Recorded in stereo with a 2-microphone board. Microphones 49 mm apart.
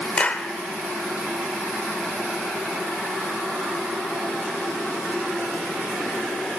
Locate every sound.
0.2 s a clap: 25° left (ahead or behind), 0.9 m